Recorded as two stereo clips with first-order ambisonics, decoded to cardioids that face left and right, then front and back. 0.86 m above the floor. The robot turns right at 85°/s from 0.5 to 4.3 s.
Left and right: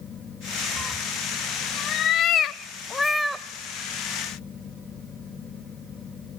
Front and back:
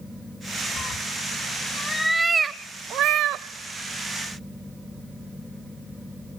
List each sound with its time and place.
0.8 s a cat meowing: 30° right, 0.7 m; by 3.5 s 160° right, 0.7 m